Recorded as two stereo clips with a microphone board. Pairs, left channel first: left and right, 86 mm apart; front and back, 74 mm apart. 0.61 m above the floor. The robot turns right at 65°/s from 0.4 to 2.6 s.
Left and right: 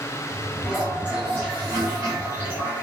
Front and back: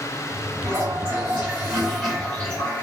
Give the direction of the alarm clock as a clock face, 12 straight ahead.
I don't hear an alarm clock.